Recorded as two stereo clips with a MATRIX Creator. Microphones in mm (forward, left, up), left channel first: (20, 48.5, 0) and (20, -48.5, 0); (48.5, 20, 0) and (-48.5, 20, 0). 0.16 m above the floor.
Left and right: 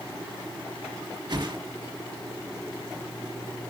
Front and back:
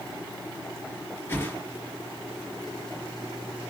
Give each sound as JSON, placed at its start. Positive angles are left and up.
{"t": 1.3, "sound": "a whoosh", "azimuth_deg": -65, "distance_m": 3.5}